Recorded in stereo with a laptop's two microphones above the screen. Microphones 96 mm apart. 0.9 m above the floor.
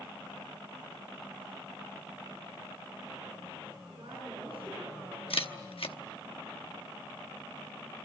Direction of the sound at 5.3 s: 75° left (ahead or behind).